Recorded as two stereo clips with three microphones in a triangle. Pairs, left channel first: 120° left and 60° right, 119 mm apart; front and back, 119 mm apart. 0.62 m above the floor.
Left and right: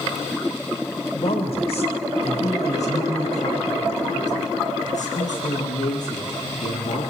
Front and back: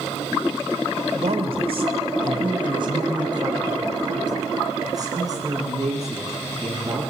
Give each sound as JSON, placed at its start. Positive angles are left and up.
{"t": 1.1, "sound": "a woman speaking", "azimuth_deg": 155, "distance_m": 2.5}